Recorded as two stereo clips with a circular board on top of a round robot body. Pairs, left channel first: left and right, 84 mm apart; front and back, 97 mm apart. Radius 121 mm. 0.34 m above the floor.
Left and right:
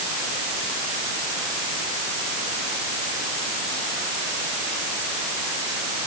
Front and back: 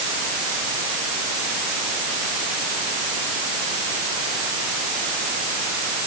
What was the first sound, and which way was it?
Only background noise.